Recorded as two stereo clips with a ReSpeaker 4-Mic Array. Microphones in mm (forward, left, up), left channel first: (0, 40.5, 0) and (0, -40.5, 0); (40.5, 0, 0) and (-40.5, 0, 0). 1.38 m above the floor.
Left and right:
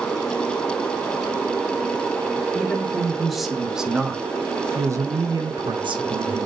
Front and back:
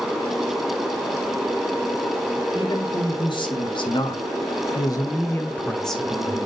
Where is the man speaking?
5° left, 3.5 m; by 6.5 s 100° right, 1.9 m.